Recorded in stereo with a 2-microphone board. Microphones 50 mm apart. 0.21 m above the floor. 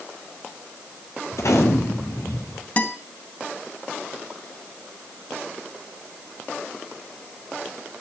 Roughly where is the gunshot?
Left.